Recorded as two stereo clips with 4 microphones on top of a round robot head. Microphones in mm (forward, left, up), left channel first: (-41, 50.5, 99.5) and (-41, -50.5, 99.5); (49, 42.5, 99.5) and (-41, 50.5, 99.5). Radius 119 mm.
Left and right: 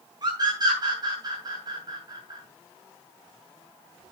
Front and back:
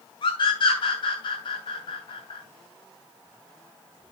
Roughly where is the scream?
Ahead right.